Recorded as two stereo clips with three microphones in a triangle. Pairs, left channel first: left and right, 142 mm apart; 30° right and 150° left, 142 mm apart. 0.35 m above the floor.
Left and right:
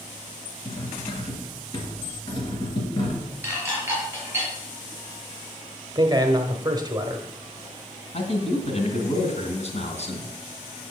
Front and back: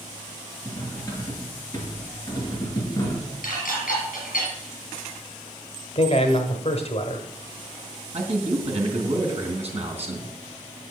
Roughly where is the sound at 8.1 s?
Behind left.